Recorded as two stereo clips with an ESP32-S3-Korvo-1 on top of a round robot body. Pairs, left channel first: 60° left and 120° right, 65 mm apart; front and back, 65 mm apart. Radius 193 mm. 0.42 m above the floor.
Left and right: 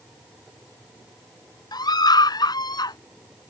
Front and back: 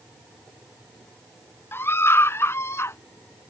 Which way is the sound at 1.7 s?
55° left.